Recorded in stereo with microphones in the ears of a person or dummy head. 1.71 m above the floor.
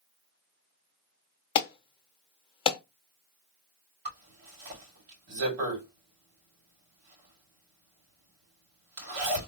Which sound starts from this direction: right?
A zipper, at 4.0 s.